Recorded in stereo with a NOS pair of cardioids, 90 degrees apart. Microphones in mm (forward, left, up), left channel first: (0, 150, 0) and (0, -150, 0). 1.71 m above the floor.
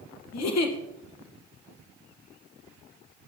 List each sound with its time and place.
0.3 s a giggle: 60° left, 1.9 m